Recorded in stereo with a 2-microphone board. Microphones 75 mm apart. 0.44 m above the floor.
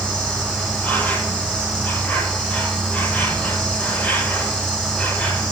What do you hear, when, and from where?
0.0 s an insect: 15° left (ahead or behind), 5 m